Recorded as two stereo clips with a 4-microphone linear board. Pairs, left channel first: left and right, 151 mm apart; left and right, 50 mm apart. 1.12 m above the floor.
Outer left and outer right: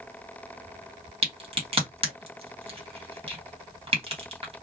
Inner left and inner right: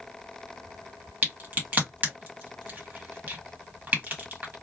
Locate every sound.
1.2 s a crack: 40° right (ahead or behind), 1.4 m